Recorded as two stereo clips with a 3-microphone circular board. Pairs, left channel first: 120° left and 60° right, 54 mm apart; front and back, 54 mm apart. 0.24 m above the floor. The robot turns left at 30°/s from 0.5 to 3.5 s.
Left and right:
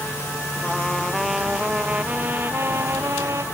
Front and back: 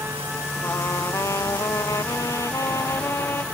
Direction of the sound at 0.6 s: 45° left.